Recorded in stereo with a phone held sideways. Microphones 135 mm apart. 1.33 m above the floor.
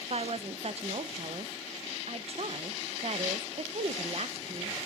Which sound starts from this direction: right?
A woman speaking, at 0.1 s.